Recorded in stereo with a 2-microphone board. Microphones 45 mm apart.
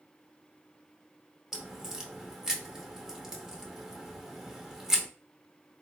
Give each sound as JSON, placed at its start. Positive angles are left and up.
{"t": 1.5, "sound": "a crack", "side_deg": -10, "distance_m": 0.7}